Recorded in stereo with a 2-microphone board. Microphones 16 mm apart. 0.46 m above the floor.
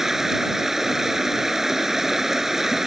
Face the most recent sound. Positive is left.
turn(degrees=-25)  # may be behind; listen again after turning